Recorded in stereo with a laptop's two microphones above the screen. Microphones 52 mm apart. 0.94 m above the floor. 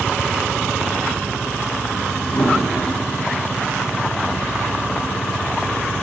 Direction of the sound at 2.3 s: 50° left (ahead or behind).